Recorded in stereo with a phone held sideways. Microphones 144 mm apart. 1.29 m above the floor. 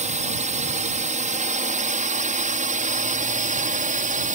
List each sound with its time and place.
0.0 s a drone: 55° right (ahead or behind); by 4.3 s 65° right (ahead or behind)